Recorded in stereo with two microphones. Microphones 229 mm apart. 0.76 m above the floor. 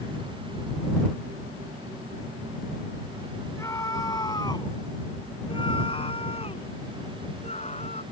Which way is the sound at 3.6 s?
10° left (ahead or behind).